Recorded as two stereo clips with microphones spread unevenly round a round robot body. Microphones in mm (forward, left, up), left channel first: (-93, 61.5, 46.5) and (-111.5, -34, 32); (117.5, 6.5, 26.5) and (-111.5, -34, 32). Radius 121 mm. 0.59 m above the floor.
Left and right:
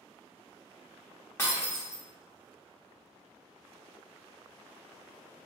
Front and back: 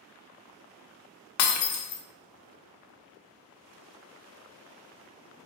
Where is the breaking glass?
5° left, 0.6 m.